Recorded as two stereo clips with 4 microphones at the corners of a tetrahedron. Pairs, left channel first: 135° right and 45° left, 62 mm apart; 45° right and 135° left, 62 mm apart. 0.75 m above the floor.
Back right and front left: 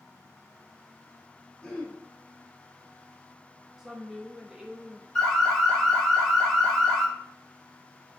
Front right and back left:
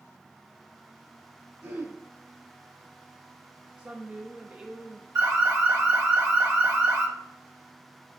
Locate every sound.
1.6 s throat clearing: 165° left, 1.8 m
3.8 s a woman speaking: 115° left, 0.6 m
5.2 s an alarm: 150° left, 1.5 m